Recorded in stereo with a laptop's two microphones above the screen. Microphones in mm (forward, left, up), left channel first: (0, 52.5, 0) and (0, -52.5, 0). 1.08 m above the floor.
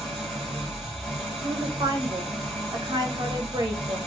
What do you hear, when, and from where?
0.0 s an engine running: centre (ahead or behind), 1.7 m
1.4 s a woman speaking: 40° right (ahead or behind), 1.1 m